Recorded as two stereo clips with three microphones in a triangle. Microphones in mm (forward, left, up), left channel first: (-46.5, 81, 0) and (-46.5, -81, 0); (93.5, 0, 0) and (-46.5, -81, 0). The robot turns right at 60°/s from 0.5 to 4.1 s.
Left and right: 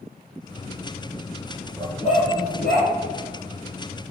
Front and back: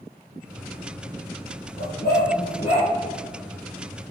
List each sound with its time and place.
1.8 s a dog barking: 25° left, 3.5 m; by 2.9 s 95° left, 3.5 m